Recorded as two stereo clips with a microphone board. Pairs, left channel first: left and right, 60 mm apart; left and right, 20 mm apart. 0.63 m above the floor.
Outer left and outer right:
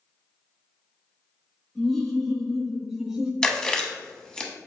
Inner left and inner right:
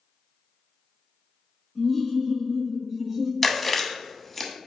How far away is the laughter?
About 1.9 m.